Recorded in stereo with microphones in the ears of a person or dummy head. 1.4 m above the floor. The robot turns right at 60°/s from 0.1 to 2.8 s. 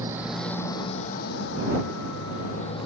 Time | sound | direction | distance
0.0 | a motorcycle | 15° right (ahead or behind) | ?